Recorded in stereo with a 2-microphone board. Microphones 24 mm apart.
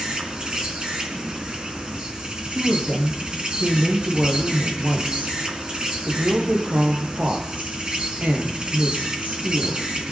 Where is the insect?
40° right (ahead or behind), 3.5 m.